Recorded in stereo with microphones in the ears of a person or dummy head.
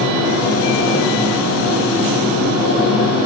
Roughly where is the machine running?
Centre.